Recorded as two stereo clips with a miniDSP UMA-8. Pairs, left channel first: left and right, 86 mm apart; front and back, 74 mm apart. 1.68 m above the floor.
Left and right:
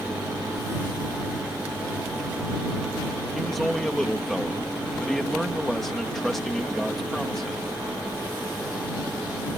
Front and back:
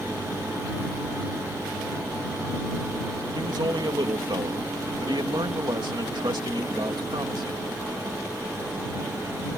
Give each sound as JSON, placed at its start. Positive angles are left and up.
{"t": 3.3, "sound": "a man speaking", "azimuth_deg": 180}